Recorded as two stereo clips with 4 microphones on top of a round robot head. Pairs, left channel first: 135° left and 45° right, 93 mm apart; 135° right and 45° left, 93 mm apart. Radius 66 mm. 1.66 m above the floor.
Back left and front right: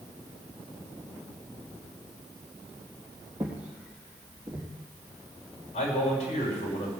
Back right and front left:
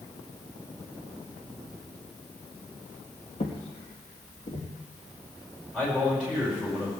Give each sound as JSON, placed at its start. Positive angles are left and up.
{"t": 3.4, "sound": "footsteps", "azimuth_deg": -120, "distance_m": 3.0}
{"t": 5.7, "sound": "a man speaking", "azimuth_deg": 145, "distance_m": 5.5}